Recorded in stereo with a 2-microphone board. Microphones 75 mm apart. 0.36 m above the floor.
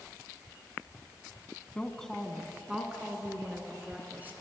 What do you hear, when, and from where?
1.8 s a woman speaking: 15° left (ahead or behind), 2.5 m; by 4.3 s 25° right (ahead or behind), 5 m